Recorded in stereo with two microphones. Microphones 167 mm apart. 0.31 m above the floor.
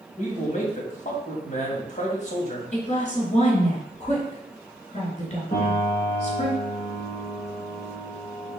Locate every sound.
0.2 s a man speaking: 45° left (ahead or behind), 2.5 m
2.7 s a woman speaking: 40° left (ahead or behind), 3.5 m
5.5 s a piano: 50° left (ahead or behind), 3.5 m